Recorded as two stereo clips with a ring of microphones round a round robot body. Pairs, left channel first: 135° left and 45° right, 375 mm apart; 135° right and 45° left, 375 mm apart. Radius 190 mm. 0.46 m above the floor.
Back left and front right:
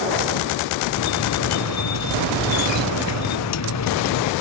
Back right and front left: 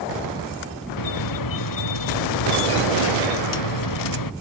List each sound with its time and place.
1.0 s a squeak: 175° right